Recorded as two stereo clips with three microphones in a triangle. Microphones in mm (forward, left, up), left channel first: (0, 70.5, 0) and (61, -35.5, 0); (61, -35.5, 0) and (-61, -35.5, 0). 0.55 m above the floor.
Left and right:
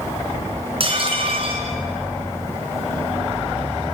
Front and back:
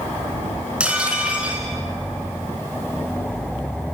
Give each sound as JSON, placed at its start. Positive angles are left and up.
{"t": 0.8, "sound": "dishes clattering", "azimuth_deg": -100, "distance_m": 4.0}